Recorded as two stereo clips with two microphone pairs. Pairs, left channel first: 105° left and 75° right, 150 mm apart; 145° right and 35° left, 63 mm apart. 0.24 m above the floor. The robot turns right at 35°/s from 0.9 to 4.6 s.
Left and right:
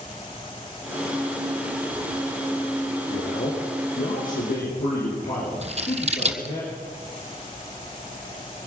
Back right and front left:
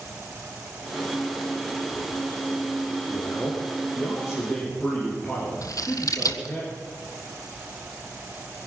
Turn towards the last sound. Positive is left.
turn(degrees=-120)